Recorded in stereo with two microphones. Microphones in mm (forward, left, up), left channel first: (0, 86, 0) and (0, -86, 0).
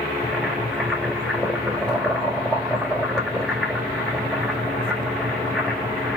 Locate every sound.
0.2 s boiling: centre (ahead or behind), 3 m